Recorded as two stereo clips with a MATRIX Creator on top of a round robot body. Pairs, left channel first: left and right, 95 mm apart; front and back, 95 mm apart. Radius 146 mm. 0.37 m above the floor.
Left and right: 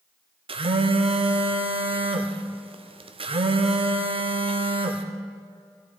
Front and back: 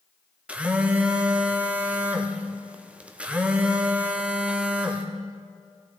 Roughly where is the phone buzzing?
Right.